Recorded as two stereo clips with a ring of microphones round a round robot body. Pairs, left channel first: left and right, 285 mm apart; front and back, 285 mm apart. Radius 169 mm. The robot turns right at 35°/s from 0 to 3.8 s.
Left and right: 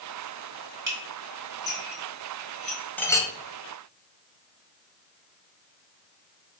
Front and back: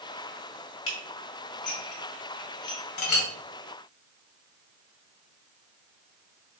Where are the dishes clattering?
40° right, 2.5 m; by 2.8 s 25° left, 2.5 m.